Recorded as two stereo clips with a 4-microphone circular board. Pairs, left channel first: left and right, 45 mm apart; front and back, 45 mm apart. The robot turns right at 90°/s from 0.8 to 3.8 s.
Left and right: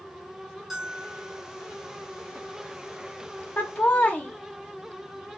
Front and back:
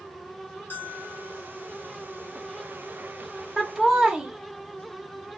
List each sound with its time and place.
0.7 s a bell: 5° right, 1.0 m; by 1.5 s 55° left, 1.0 m
3.6 s laughter: 80° left, 0.7 m; by 5.4 s 100° left, 0.7 m